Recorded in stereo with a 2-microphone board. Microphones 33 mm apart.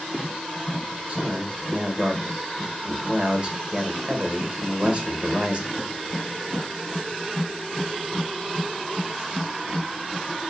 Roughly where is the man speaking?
Right.